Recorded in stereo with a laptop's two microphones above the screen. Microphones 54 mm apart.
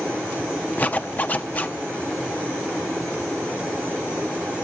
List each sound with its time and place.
0.8 s a zipper: 30° left (ahead or behind), 1.0 m